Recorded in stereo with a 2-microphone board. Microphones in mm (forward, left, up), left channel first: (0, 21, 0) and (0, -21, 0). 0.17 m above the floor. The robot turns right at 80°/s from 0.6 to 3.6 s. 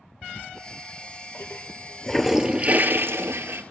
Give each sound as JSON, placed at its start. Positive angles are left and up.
{"t": 0.2, "sound": "a toilet flushing", "side_deg": 50, "distance_m": 1.0}